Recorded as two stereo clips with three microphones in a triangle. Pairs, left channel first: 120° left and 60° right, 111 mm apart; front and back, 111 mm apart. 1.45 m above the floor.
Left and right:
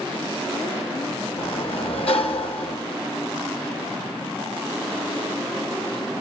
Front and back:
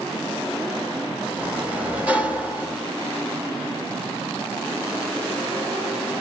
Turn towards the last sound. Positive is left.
turn(degrees=105)